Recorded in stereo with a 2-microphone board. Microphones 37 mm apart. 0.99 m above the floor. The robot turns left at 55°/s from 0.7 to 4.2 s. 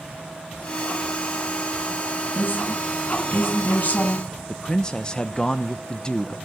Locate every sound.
2.4 s a woman speaking: 125° left, 6.5 m; by 4.3 s 25° left, 6.5 m
4.5 s a man speaking: 20° left (ahead or behind), 0.8 m